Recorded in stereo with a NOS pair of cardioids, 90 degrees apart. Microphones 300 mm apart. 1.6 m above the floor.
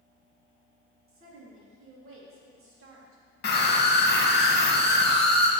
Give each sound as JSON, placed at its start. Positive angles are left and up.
{"t": 1.1, "sound": "a woman speaking", "azimuth_deg": -50, "distance_m": 2.5}
{"t": 3.4, "sound": "a scream", "azimuth_deg": 35, "distance_m": 1.6}